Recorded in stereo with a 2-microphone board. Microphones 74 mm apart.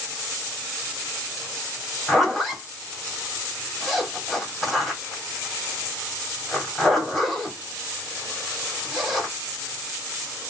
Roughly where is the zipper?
Centre.